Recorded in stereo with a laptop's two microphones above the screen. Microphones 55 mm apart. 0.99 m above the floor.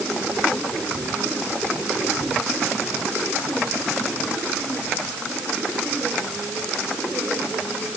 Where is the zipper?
I don't hear a zipper.